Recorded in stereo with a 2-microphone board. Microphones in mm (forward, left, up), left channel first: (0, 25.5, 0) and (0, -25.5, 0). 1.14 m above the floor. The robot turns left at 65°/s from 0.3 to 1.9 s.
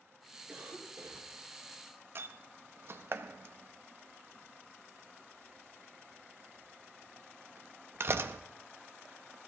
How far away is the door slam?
About 0.6 m.